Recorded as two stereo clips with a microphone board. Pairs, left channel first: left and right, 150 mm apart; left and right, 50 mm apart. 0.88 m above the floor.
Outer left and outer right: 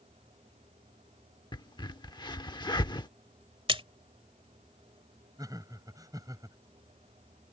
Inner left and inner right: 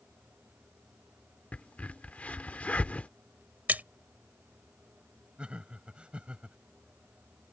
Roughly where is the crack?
Left.